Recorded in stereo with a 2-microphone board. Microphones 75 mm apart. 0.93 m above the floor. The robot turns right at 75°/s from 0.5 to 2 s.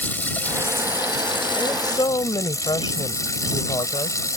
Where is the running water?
25° left; by 4.4 s 135° left.